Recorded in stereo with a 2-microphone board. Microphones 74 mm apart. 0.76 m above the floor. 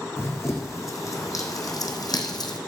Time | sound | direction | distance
0.2 | running footsteps | 40° left (ahead or behind) | 2.5 m